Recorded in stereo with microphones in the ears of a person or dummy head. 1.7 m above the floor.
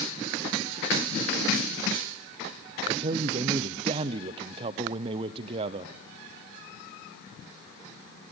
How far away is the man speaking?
About 0.8 m.